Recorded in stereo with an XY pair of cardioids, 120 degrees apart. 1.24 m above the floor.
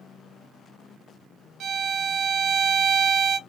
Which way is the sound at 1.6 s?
60° right.